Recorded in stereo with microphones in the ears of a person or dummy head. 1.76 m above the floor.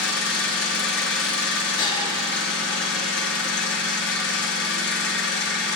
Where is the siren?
I don't hear a siren.